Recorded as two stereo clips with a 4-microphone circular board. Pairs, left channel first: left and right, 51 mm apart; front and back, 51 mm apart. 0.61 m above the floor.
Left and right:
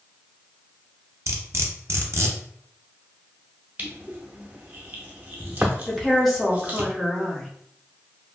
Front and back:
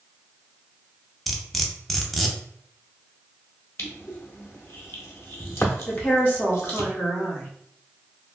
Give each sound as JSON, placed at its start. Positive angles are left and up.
{"t": 1.3, "sound": "cutlery clinking", "azimuth_deg": -85, "distance_m": 0.5}
{"t": 3.8, "sound": "crushing", "azimuth_deg": -30, "distance_m": 0.6}
{"t": 5.9, "sound": "a woman speaking", "azimuth_deg": 0, "distance_m": 1.0}